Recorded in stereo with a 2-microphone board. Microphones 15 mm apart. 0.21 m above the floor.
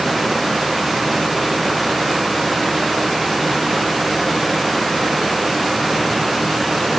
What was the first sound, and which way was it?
Only background noise.